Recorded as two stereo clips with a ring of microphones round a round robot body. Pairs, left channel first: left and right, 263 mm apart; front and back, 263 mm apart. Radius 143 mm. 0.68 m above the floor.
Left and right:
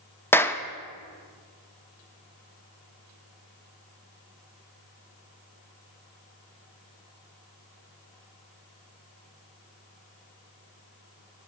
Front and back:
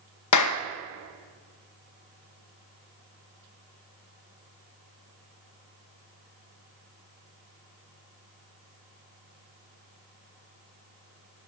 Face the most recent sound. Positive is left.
turn(degrees=10)